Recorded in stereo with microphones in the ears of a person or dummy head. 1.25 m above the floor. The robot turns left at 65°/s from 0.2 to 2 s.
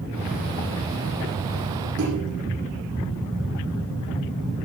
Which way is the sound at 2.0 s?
65° right (ahead or behind).